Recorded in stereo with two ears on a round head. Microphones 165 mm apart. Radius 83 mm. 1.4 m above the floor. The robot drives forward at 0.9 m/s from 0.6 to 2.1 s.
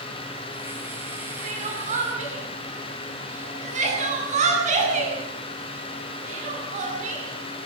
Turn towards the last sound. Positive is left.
turn(degrees=-40)  # may be behind; listen again after turning